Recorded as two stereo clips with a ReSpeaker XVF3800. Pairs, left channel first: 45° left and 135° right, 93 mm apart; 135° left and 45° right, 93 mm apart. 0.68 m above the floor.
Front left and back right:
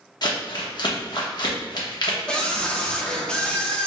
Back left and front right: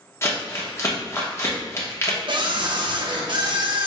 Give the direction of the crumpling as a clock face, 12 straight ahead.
9 o'clock.